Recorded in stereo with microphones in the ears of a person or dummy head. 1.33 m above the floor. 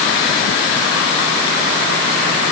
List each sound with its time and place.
Only background noise.